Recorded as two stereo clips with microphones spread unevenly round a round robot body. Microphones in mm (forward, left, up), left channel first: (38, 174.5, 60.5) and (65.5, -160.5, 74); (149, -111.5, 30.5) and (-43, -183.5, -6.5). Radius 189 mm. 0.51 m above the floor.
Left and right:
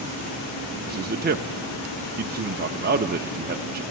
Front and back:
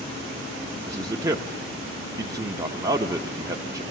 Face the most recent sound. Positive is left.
turn(degrees=-125)